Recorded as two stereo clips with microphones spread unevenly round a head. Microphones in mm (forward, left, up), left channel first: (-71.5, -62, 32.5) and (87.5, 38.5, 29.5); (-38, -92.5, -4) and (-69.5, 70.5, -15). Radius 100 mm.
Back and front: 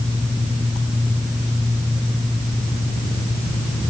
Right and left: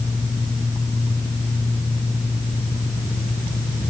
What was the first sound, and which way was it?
Only background noise.